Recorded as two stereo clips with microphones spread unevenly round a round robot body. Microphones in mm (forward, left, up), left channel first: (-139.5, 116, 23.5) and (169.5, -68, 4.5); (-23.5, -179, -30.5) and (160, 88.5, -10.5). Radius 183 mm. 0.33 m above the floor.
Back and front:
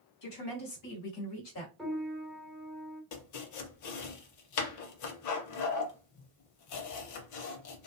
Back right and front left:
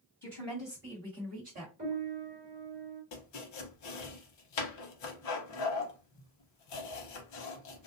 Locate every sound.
0.2 s a woman speaking: 155° left, 1.9 m; by 1.7 s 110° left, 1.7 m
1.8 s a piano: 50° left, 1.4 m
3.1 s chopping: 165° right, 0.6 m